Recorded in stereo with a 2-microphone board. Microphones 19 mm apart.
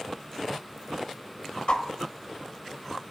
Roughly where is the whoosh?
Left.